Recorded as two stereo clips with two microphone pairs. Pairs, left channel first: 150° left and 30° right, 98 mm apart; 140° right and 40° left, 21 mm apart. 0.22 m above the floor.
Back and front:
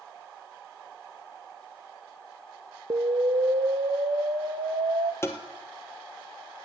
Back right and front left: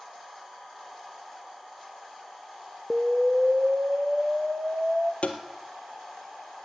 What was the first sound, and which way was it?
An explosion, 5° right.